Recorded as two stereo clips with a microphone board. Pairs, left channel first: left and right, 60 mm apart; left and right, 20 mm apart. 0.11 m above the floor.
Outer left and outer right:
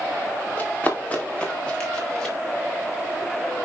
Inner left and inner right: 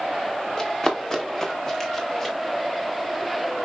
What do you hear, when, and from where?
0.6 s running footsteps: 30° left (ahead or behind), 3.5 m; by 2.4 s 10° left (ahead or behind), 4.5 m